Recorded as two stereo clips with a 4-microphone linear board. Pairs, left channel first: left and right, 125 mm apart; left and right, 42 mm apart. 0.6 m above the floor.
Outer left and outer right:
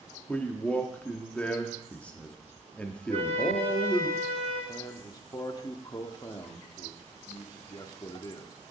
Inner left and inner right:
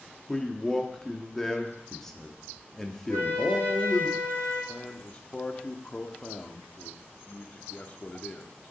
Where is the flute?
45° left (ahead or behind), 4.5 m.